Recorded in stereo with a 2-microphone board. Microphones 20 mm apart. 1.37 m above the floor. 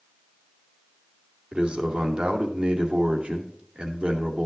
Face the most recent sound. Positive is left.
turn(degrees=-85)